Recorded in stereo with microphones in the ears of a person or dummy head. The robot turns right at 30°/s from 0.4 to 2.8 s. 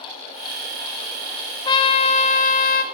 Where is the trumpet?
30° left, 0.9 m; by 2.8 s 65° left, 0.9 m.